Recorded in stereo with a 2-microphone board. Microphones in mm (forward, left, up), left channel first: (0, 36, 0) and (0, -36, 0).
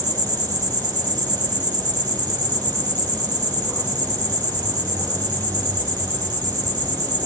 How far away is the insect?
About 5 m.